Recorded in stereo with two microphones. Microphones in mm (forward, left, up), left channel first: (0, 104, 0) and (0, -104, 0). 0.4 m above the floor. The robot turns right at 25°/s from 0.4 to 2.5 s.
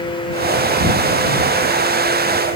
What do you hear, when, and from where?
Only background noise.